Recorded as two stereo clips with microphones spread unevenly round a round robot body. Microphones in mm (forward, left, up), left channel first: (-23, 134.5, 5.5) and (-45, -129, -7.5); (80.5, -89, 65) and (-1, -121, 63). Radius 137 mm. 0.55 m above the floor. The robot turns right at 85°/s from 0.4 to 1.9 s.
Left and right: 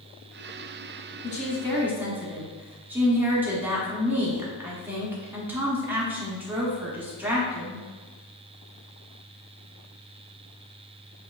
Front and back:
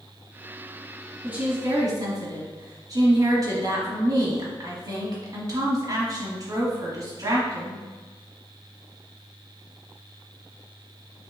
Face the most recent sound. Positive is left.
turn(degrees=-170)